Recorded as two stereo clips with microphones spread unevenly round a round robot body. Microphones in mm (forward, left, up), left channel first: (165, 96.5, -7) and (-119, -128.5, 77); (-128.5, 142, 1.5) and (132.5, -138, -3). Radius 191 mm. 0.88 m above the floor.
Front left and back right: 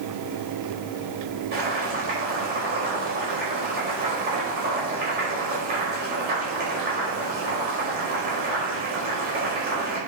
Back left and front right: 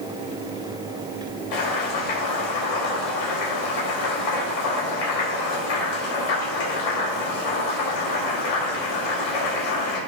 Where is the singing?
I don't hear singing.